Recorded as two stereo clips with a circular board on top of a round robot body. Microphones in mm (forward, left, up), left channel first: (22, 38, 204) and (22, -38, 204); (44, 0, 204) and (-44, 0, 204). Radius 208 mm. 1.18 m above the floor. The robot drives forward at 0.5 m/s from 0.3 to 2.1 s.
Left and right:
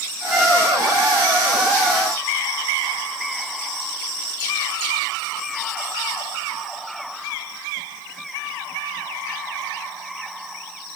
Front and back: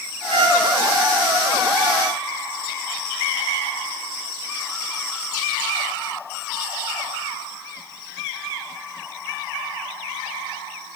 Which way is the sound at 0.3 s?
170° right.